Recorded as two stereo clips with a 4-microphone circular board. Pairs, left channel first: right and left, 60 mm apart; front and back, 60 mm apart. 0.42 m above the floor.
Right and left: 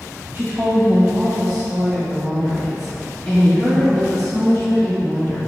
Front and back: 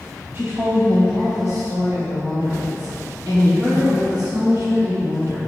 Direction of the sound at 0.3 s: 140° left.